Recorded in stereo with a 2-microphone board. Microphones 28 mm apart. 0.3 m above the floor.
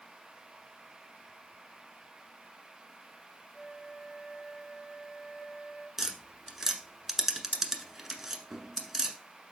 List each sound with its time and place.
3.5 s a flute: 15° left (ahead or behind), 5 m
6.0 s tapping: 15° right (ahead or behind), 1.1 m